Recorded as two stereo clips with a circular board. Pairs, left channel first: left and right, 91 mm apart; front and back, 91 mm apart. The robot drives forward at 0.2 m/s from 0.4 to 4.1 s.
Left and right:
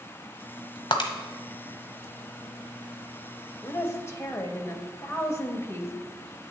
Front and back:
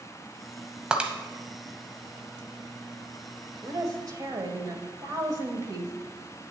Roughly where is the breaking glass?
Left.